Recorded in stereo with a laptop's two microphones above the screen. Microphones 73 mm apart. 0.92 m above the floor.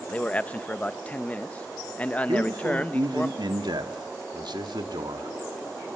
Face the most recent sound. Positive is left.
turn(degrees=-80)